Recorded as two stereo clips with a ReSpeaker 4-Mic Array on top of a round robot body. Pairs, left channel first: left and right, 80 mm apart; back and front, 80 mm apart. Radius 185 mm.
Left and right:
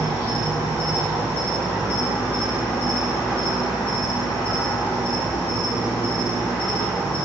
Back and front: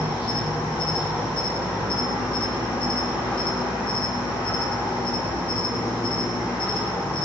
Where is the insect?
160° left, 1.3 m.